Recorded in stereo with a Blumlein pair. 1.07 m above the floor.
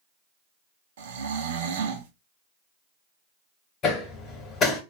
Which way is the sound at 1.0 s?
60° right.